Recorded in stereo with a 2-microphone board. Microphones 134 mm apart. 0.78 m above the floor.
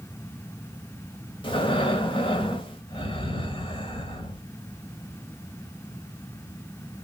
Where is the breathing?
40° left (ahead or behind), 1.4 m.